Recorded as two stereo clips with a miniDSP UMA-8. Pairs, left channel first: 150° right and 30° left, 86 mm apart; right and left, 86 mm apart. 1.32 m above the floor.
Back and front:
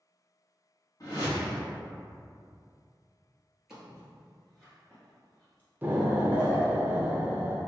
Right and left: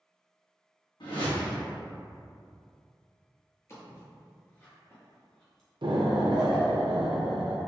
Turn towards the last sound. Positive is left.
turn(degrees=100)